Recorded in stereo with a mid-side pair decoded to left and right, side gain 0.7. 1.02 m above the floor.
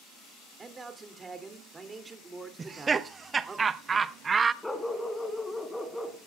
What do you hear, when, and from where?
0.6 s a man speaking: 20° right, 2.5 m
2.6 s laughter: 25° right, 0.9 m
4.6 s a dog barking: 5° left, 2.5 m